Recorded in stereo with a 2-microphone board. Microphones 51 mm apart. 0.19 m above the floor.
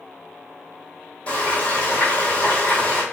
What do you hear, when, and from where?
1.3 s frying: 25° left (ahead or behind), 1.2 m